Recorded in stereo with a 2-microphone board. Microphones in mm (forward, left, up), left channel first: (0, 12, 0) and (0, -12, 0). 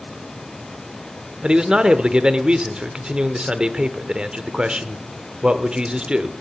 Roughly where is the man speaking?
Right.